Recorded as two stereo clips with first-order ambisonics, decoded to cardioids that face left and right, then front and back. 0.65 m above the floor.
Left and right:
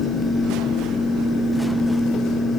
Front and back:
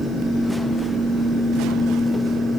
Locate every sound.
Only background noise.